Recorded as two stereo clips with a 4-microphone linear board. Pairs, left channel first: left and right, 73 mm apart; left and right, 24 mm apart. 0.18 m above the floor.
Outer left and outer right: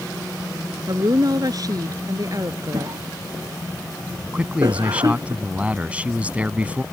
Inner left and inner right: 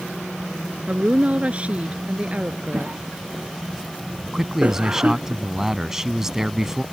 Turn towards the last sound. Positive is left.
turn(degrees=-20)  # may be behind; listen again after turning